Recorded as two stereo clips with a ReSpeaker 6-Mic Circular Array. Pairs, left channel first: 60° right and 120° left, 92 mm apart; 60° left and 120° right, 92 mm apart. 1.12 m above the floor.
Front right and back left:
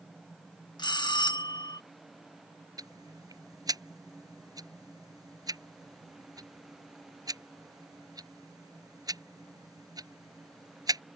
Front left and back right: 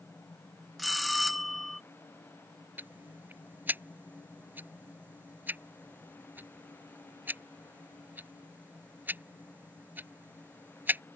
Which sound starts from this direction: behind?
Ticking, at 2.8 s.